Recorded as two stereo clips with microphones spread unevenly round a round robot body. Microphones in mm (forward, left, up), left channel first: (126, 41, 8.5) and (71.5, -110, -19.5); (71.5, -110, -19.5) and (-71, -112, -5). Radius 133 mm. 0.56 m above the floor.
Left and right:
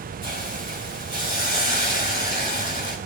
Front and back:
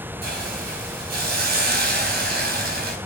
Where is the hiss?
Straight behind, 4 m.